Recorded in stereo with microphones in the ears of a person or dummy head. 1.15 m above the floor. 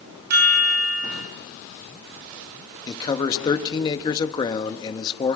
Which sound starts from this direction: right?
A chime, at 0.3 s.